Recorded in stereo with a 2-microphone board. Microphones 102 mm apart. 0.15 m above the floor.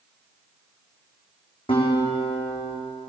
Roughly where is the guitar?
Left.